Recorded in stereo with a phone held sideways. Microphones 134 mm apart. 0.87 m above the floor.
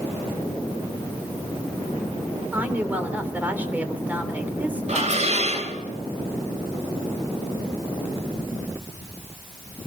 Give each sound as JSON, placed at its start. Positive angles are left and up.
{"t": 2.5, "sound": "a woman speaking", "side_deg": -15, "distance_m": 3.0}
{"t": 4.9, "sound": "dishes clattering", "side_deg": -55, "distance_m": 3.0}